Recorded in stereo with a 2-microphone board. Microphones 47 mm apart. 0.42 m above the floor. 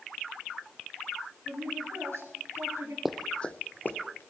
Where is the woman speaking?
65° right (ahead or behind), 6 m; by 3.0 s 80° right, 6 m.